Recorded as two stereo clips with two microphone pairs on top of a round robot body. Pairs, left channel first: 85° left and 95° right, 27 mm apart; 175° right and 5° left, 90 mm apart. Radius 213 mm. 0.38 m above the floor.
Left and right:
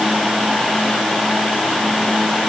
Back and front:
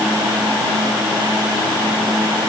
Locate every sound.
Only background noise.